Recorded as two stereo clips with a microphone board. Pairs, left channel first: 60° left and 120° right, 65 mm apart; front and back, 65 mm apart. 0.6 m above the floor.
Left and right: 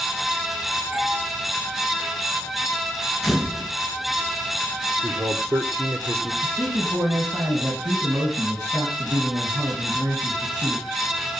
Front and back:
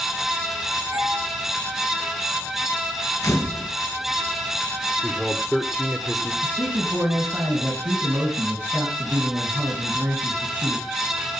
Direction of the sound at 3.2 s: 30° right.